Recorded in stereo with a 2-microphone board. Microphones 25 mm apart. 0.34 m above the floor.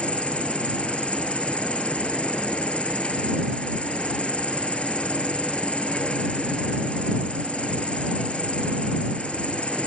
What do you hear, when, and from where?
0.0 s an insect: 50° left (ahead or behind)